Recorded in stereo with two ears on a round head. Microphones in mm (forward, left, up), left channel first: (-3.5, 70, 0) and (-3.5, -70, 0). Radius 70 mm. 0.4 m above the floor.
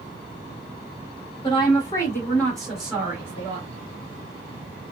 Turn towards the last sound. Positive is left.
turn(degrees=-25)  # may be behind; listen again after turning